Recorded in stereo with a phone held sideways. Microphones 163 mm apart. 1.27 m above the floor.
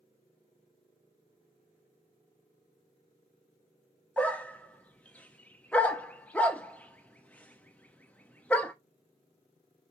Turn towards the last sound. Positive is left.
turn(degrees=10)  # may be behind; listen again after turning